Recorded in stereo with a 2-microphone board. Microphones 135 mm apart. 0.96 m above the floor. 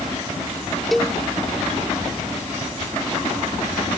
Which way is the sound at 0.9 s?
Centre (ahead or behind).